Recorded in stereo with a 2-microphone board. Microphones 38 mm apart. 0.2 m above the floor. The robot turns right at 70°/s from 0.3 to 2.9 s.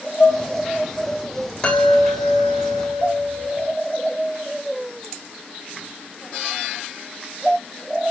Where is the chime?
155° left, 8 m; by 3.7 s 120° right, 8 m.